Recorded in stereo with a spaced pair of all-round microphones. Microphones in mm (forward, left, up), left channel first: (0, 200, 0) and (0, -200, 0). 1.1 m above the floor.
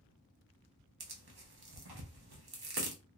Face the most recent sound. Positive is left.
turn(degrees=-75)  # may be behind; listen again after turning